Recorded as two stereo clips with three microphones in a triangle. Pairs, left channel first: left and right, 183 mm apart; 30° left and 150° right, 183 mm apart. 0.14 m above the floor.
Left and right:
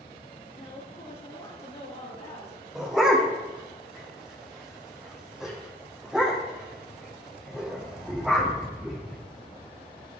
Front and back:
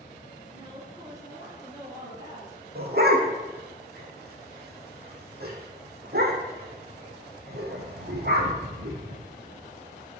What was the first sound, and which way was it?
A woman speaking, 140° left.